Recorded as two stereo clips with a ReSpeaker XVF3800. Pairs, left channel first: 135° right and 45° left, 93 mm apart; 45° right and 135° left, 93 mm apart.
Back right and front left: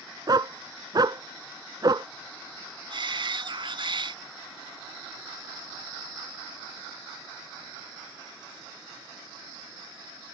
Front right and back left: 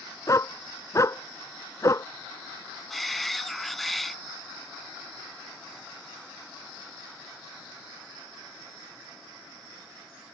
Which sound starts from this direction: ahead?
A dog barking, at 0.3 s.